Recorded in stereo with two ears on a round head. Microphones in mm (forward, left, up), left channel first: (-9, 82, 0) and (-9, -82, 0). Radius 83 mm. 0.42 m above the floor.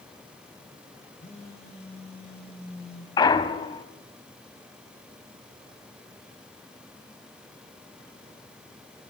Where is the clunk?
25° left (ahead or behind), 0.9 m.